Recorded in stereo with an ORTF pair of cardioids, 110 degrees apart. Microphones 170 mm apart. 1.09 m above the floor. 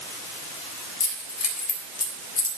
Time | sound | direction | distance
1.0 | keys jangling | 60° left | 4 m